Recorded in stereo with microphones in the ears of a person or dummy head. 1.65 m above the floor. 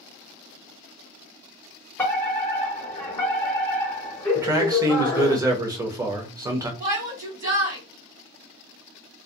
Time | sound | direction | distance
2.0 | a fire alarm | 10° left (ahead or behind) | 0.9 m
4.3 | a man speaking | 20° right (ahead or behind) | 0.7 m
6.8 | a shout | 30° right (ahead or behind) | 1.2 m